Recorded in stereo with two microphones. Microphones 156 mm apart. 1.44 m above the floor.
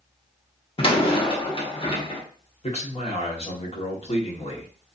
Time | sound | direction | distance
0.8 | a door slam | 35° left (ahead or behind) | 0.8 m
2.6 | a man speaking | 40° left (ahead or behind) | 1.2 m